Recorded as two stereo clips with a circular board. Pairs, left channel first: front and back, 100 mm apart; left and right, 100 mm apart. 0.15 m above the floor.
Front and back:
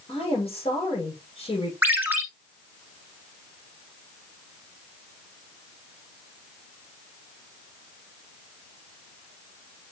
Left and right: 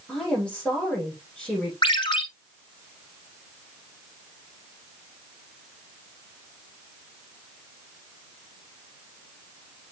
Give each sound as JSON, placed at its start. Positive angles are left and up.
{"t": 0.1, "sound": "a woman speaking", "azimuth_deg": 10, "distance_m": 7.0}
{"t": 1.8, "sound": "a ringtone", "azimuth_deg": 110, "distance_m": 1.5}